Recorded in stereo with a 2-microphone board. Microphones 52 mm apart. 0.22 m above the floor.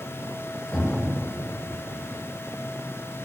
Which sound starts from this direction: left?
A cupboard door, at 0.7 s.